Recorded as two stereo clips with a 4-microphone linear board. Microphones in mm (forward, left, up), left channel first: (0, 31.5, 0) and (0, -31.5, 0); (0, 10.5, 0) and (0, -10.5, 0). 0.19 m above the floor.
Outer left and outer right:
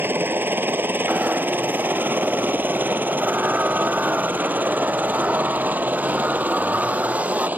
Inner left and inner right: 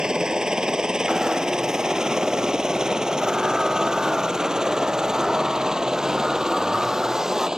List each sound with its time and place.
0.0 s a helicopter: 35° right (ahead or behind); by 7.6 s 25° right (ahead or behind)
1.1 s a zipper: 20° right (ahead or behind)